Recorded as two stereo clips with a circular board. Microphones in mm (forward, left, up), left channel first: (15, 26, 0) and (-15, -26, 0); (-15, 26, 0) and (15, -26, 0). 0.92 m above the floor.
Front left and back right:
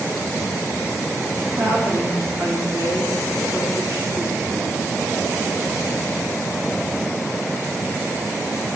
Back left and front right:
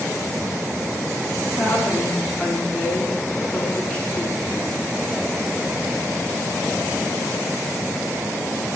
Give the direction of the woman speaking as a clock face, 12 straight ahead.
5 o'clock.